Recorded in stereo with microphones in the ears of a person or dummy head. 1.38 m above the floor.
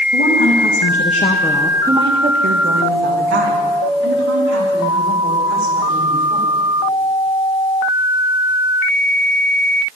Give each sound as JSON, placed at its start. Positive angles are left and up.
{"t": 0.1, "sound": "a woman speaking", "side_deg": 70, "distance_m": 2.0}